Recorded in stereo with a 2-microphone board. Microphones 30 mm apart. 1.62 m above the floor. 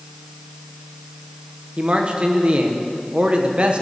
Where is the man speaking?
40° right (ahead or behind), 1.5 m.